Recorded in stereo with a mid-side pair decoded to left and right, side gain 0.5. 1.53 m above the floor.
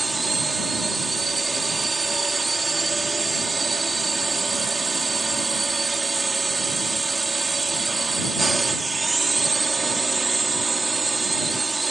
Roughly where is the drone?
Ahead.